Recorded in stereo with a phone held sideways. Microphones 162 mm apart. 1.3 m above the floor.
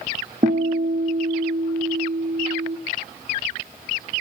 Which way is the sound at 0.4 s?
60° right (ahead or behind).